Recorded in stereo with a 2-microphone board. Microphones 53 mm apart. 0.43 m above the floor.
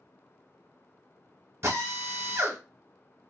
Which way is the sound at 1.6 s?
55° right (ahead or behind).